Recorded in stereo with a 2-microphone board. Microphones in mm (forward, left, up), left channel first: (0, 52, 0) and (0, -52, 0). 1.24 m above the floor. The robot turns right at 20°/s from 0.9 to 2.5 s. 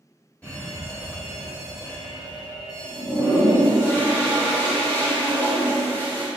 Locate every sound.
0.4 s an alarm: 15° left, 1.8 m; by 3.9 s 45° left, 1.8 m
2.9 s a toilet flushing: 20° left (ahead or behind), 1.2 m